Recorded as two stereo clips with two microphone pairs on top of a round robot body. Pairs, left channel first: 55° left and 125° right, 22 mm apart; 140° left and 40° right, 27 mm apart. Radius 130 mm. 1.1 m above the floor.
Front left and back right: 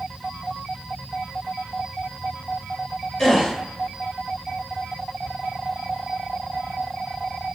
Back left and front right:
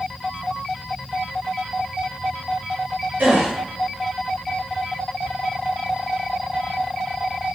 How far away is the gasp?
About 0.9 m.